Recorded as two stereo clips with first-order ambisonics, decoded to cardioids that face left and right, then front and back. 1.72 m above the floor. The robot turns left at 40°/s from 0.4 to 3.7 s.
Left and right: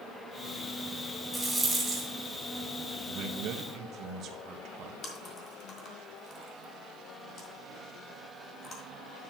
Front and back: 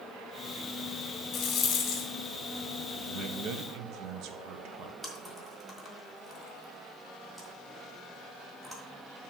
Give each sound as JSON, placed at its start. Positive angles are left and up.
{"t": 1.3, "sound": "a rattle", "azimuth_deg": 0, "distance_m": 2.0}
{"t": 3.1, "sound": "a man speaking", "azimuth_deg": -120, "distance_m": 1.2}
{"t": 5.0, "sound": "chewing", "azimuth_deg": 95, "distance_m": 1.7}